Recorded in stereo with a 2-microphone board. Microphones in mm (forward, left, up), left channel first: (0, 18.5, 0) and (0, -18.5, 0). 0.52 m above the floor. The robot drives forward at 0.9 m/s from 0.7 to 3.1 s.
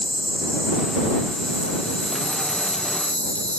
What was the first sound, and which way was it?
An insect, 25° left (ahead or behind).